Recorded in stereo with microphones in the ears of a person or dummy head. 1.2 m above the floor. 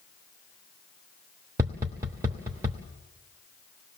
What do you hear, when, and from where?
1.6 s tapping: 20° right (ahead or behind), 1.0 m